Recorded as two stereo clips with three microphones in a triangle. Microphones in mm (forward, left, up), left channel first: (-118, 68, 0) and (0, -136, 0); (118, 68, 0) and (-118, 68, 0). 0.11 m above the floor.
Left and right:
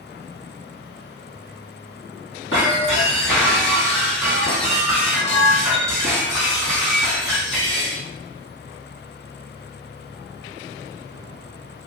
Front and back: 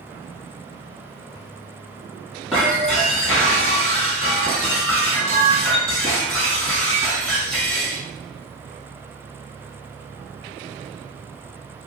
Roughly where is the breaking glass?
Left.